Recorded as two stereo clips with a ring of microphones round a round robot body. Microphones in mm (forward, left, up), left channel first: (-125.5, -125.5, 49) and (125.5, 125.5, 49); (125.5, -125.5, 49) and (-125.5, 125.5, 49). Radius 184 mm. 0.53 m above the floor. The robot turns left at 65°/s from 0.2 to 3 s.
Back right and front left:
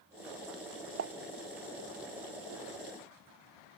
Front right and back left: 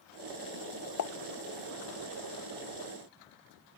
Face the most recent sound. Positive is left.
turn(degrees=-135)